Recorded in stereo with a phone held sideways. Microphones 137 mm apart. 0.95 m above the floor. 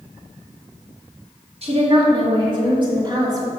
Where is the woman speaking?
50° right (ahead or behind), 2 m; by 3.5 s 30° right (ahead or behind), 2.5 m.